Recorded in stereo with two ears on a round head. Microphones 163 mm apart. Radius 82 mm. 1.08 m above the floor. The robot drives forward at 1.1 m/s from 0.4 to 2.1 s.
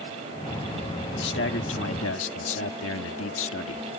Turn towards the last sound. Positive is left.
turn(degrees=85)